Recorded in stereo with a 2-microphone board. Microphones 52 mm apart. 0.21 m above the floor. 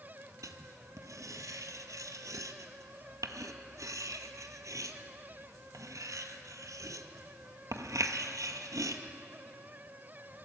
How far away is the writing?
About 0.8 m.